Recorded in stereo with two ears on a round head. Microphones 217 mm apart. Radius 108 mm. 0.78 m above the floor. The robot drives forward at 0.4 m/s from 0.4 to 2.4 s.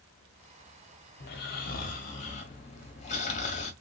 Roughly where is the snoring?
Left.